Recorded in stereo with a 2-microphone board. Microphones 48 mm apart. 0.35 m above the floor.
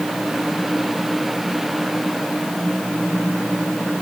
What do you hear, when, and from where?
Only background noise.